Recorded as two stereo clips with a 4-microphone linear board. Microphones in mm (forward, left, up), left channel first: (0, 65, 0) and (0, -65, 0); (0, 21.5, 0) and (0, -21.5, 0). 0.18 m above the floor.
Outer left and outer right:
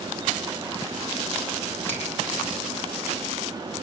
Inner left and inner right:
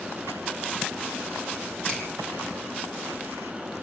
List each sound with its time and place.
1.9 s a finger snap: 15° left (ahead or behind), 6 m